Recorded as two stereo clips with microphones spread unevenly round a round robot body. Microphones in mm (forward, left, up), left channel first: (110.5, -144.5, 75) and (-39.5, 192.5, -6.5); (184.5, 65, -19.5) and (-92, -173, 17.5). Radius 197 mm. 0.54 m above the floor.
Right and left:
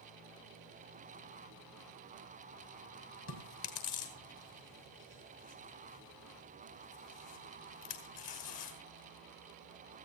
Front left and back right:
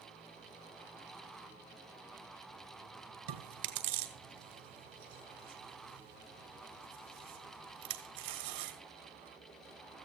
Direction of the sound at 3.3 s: 105° right.